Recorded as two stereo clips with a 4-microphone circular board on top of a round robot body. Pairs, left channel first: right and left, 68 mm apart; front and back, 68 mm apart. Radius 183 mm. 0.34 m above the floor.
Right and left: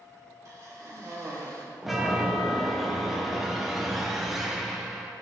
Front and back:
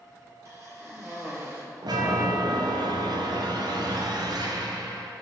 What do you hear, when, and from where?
0.5 s a cough: 135° left, 3.5 m
1.8 s a chime: straight behind, 1.2 m